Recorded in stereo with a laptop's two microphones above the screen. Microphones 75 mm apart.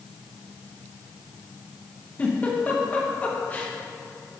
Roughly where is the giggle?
Left.